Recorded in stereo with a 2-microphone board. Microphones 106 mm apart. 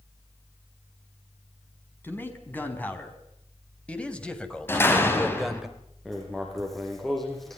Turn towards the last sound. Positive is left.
turn(degrees=0)  # may be behind; listen again after turning